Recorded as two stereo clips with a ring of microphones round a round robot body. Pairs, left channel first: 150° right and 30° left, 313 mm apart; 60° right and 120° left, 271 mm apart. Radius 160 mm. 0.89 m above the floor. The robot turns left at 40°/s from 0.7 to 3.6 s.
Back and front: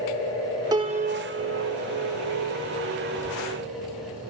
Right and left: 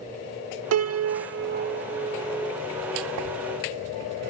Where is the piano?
105° left, 0.7 m; by 2.6 s 30° left, 0.7 m.